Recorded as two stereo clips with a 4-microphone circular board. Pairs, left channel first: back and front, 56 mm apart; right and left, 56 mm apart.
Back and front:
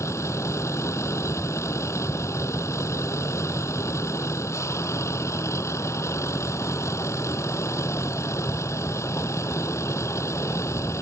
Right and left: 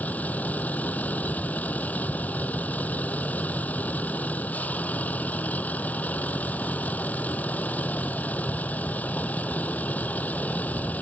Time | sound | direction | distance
0.0 | a vehicle | 150° right | ?